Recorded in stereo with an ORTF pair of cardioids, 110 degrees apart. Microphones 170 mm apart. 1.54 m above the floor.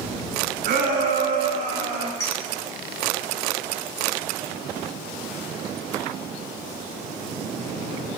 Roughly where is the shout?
Ahead right.